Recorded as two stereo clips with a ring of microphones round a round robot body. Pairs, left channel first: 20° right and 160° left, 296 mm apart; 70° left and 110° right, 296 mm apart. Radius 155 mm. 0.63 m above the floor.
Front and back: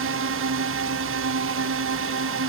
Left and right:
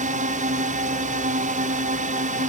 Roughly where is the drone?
Behind.